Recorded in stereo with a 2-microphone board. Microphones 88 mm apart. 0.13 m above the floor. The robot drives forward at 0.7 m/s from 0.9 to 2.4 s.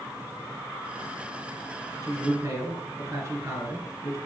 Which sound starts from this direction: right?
A man speaking, at 2.0 s.